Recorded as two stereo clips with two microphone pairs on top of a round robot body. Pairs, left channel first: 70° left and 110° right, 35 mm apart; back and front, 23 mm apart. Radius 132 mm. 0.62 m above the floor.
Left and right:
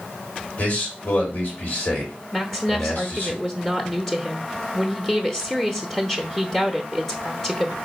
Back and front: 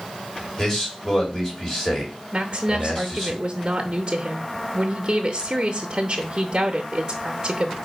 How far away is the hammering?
No hammering in this recording.